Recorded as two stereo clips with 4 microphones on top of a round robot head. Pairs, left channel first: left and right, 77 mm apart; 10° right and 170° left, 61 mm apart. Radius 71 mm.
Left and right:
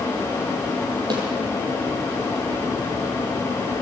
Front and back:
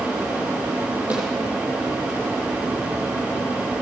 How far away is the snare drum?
About 8.5 m.